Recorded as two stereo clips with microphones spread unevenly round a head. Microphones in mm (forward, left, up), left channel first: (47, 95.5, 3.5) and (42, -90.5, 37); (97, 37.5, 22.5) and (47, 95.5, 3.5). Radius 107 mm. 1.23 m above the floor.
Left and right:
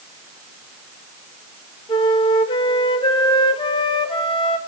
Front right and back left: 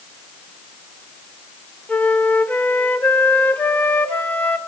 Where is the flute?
20° left, 1.4 m.